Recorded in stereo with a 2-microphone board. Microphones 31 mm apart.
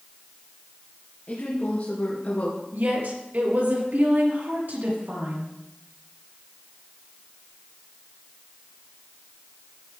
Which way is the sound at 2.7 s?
75° right (ahead or behind).